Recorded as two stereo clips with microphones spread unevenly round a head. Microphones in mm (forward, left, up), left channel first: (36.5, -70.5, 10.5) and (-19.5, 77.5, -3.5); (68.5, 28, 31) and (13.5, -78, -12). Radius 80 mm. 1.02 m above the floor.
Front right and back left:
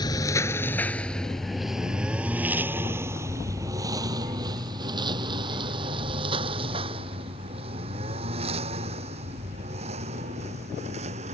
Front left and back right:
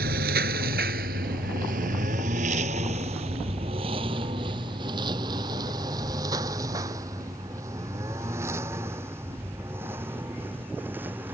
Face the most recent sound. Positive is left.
turn(degrees=165)